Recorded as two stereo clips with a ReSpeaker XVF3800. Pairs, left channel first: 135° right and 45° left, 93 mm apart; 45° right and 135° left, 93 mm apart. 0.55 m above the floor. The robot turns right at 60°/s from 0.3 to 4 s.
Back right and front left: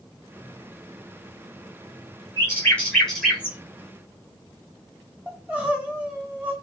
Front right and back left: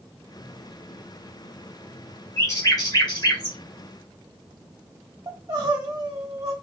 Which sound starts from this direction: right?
A bird, at 2.4 s.